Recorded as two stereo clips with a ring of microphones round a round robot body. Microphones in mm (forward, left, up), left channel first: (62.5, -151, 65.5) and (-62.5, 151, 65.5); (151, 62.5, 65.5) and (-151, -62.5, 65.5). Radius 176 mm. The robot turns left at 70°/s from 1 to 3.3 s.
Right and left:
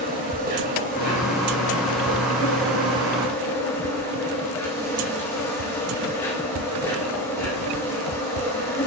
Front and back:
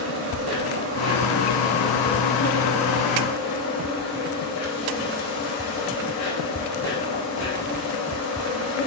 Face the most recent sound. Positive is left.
turn(degrees=15)